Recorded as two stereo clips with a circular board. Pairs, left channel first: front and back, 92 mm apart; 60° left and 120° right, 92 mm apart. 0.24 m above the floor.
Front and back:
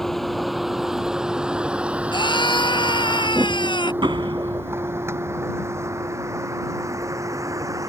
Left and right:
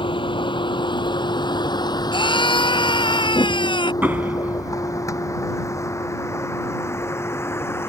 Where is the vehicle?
85° left; by 7.9 s 125° left.